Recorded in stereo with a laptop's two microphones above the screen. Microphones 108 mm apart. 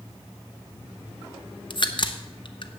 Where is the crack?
45° left (ahead or behind), 0.8 m.